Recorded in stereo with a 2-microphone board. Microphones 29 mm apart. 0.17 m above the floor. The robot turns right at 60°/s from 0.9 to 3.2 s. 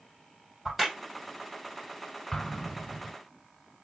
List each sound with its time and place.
0.7 s a crack: 15° right (ahead or behind), 5 m
2.3 s an explosion: 5° left (ahead or behind), 1.5 m; by 3.2 s 20° right (ahead or behind), 1.5 m